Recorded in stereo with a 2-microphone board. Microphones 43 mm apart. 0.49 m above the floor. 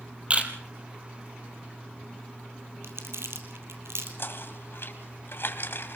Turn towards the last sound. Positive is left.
turn(degrees=65)  # may be behind; listen again after turning